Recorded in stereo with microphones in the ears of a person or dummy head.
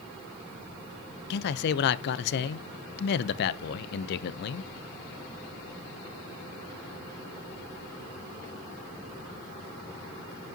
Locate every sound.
1.3 s a man speaking: 55° left (ahead or behind), 0.5 m